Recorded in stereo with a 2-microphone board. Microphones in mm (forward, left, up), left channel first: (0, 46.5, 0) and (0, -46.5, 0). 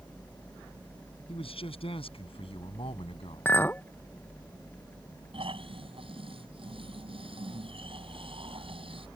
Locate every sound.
1.3 s a man speaking: 80° left; by 3.5 s 75° left (ahead or behind)
3.5 s a clink: 20° left (ahead or behind)
5.3 s snoring: 75° right (ahead or behind)